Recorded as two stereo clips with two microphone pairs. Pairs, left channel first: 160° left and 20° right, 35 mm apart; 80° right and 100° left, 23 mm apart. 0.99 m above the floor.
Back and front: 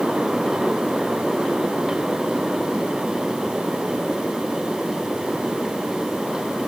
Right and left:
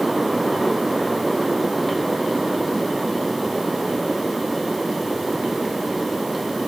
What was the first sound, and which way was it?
Only background noise.